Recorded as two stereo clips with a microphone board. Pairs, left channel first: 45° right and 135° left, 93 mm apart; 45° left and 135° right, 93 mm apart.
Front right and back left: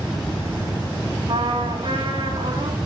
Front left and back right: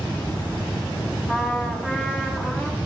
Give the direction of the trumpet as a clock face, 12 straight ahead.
8 o'clock.